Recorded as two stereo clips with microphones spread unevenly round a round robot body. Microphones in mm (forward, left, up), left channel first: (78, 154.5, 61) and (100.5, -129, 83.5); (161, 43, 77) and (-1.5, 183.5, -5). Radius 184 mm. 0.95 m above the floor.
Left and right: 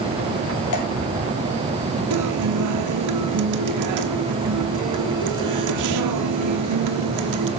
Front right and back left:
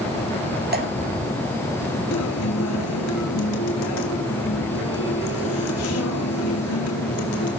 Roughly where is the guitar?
Right.